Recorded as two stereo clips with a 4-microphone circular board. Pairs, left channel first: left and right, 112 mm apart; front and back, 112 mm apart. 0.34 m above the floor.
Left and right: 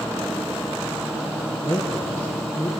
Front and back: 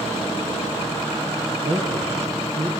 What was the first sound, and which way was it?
A man speaking, 165° left.